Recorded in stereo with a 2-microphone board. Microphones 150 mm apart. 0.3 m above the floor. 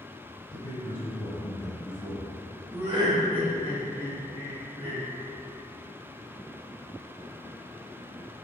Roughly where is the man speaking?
Left.